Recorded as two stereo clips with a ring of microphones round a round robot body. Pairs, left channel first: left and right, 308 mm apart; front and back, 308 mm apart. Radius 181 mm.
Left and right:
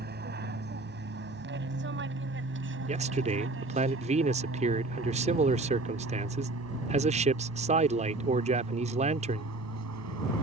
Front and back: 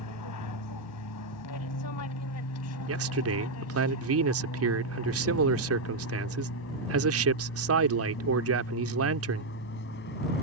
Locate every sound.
0.0 s an aircraft: 35° right; by 10.4 s 60° right
2.9 s a man speaking: 155° right